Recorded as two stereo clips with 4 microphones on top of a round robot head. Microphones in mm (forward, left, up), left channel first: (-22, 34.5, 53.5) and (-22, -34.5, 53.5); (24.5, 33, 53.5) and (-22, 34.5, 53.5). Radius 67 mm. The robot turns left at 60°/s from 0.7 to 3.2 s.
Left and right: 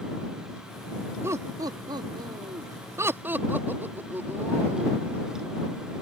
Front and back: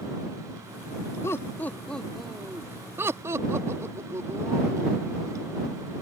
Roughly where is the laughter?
Ahead right.